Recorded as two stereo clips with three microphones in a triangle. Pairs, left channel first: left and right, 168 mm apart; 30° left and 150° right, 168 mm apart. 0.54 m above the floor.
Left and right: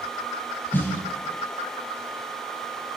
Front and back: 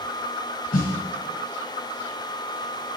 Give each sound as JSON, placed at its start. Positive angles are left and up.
{"t": 0.7, "sound": "a snare drum", "azimuth_deg": 15, "distance_m": 2.5}